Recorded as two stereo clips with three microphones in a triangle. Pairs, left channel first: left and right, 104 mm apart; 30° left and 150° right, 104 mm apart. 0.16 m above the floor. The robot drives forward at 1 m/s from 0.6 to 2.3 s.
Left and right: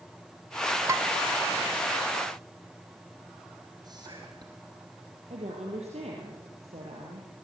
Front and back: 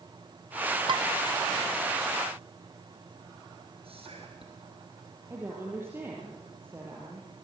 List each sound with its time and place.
0.9 s dishes clattering: 140° right, 1.0 m; by 1.1 s 150° right, 1.1 m
3.8 s whispering: 135° right, 3 m
5.3 s a woman speaking: 80° right, 4.5 m